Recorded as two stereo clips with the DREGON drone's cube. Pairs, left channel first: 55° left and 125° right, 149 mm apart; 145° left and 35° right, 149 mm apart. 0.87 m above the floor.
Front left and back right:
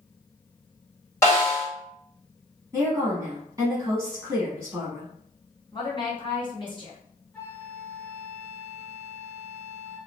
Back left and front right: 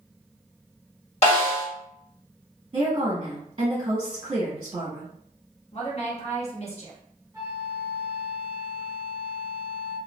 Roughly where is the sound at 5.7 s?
Left.